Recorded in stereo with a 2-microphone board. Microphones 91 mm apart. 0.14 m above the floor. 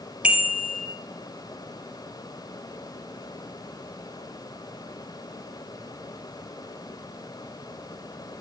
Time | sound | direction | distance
0.2 | a bicycle bell | 15° right (ahead or behind) | 2.5 m